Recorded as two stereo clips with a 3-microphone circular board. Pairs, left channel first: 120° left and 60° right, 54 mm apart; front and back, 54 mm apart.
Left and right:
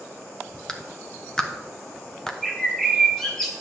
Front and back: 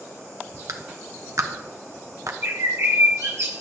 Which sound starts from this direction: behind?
A clap, at 0.7 s.